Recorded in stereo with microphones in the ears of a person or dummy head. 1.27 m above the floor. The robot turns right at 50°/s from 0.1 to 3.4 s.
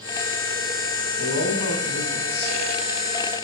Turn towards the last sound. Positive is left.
turn(degrees=175)